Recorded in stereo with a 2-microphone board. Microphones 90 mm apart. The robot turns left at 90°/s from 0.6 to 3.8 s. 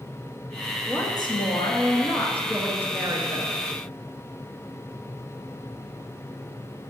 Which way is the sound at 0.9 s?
150° left.